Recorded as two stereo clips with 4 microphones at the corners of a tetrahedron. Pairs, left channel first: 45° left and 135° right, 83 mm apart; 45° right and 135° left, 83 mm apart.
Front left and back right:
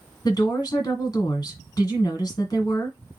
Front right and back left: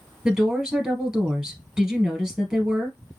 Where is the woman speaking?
60° left, 2 m.